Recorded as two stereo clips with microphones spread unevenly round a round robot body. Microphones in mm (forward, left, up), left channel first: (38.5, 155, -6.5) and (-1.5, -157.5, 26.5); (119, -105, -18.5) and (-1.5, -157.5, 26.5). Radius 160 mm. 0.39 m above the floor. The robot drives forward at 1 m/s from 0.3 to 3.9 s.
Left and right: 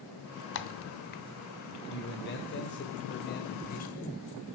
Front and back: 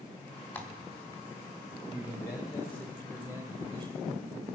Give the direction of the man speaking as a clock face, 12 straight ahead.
11 o'clock.